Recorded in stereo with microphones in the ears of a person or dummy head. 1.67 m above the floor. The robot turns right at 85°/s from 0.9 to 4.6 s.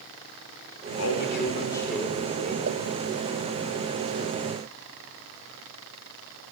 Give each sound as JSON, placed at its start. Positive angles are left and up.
{"t": 1.0, "sound": "a man speaking", "azimuth_deg": 95, "distance_m": 6.0}
{"t": 2.7, "sound": "a pop", "side_deg": -60, "distance_m": 2.0}